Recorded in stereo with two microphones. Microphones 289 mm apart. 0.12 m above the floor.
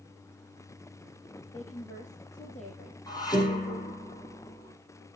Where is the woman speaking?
25° left (ahead or behind), 3.5 m.